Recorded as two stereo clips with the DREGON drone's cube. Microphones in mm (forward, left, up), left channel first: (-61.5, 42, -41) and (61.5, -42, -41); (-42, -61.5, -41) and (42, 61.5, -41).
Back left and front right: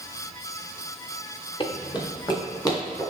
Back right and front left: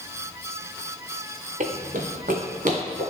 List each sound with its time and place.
1.6 s running footsteps: 90° left, 0.8 m; by 3.0 s 80° left, 2.0 m